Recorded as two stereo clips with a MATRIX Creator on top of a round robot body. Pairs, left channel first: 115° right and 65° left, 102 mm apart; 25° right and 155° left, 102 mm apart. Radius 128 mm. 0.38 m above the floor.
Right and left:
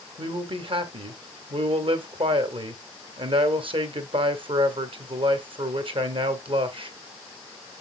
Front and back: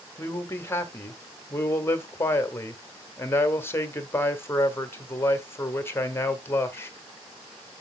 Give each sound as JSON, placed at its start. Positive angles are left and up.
{"t": 0.2, "sound": "a man speaking", "azimuth_deg": 40, "distance_m": 1.8}